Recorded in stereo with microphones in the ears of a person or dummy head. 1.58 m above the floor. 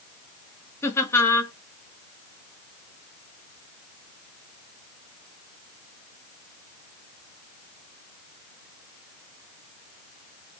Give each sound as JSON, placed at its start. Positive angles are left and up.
{"t": 0.8, "sound": "laughter", "side_deg": 15, "distance_m": 0.9}